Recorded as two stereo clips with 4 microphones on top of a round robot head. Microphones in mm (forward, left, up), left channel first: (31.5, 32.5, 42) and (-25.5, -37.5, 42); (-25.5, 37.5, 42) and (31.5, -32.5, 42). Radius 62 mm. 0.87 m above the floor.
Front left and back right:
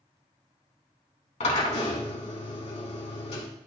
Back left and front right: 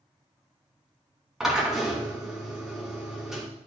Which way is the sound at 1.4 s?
35° left.